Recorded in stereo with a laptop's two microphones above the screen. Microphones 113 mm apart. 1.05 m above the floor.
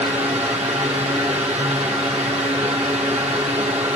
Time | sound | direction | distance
0.0 | a fan | 75° right (ahead or behind) | 1.6 m